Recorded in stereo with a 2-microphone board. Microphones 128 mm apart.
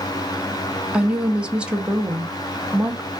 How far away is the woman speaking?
About 0.6 m.